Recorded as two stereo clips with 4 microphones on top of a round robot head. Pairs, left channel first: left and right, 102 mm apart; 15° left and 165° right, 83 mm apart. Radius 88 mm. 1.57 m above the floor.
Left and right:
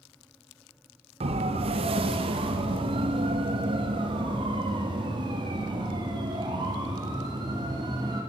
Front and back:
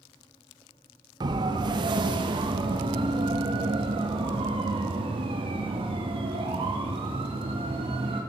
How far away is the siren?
About 2.5 m.